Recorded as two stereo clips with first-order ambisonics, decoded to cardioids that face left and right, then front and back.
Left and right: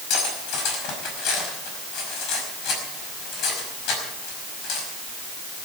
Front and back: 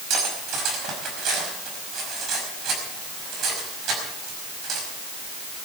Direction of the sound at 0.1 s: 130° left.